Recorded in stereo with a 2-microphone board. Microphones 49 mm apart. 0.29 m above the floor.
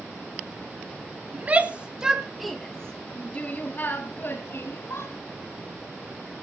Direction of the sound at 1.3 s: 35° right (ahead or behind).